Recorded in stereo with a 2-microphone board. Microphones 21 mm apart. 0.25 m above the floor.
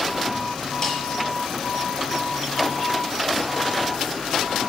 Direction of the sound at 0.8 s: 20° left (ahead or behind).